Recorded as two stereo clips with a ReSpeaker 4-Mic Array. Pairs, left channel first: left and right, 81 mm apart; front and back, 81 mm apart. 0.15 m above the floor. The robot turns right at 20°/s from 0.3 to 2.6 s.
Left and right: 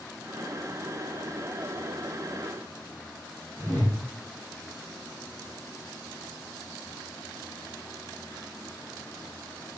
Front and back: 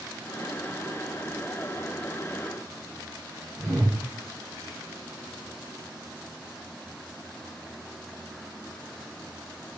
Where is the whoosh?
135° right, 1.4 m.